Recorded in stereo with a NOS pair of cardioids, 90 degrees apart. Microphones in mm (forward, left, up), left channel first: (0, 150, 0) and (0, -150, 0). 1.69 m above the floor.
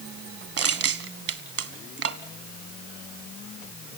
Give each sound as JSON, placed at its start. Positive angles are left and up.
{"t": 0.6, "sound": "crushing", "azimuth_deg": -50, "distance_m": 1.6}